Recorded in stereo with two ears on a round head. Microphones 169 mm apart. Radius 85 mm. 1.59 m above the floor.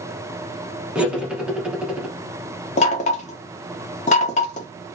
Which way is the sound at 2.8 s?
35° left (ahead or behind).